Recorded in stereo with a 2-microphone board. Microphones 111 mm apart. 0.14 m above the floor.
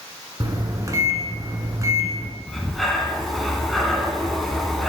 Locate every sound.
0.4 s a microwave: 30° right (ahead or behind), 0.9 m
2.5 s breathing: centre (ahead or behind), 0.8 m